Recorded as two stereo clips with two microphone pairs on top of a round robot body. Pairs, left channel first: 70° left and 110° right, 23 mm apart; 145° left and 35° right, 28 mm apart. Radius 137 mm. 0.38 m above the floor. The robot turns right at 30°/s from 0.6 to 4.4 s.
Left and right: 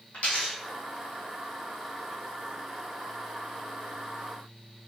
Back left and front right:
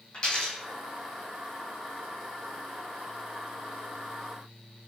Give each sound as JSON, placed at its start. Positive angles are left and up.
{"t": 0.1, "sound": "a dropped coin", "azimuth_deg": 90, "distance_m": 1.4}